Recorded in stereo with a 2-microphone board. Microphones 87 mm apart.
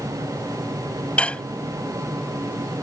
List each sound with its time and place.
1.2 s dishes clattering: 15° left (ahead or behind)